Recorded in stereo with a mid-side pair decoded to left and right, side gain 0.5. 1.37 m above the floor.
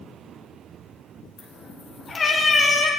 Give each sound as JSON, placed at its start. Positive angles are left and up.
{"t": 1.4, "sound": "a cat meowing", "azimuth_deg": 55, "distance_m": 3.0}